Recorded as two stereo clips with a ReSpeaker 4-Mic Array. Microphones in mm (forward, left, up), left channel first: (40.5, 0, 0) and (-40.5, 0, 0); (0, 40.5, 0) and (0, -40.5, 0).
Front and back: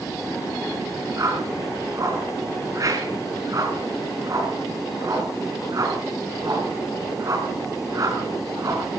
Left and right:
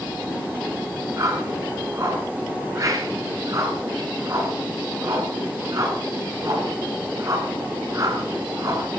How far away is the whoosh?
About 6.5 m.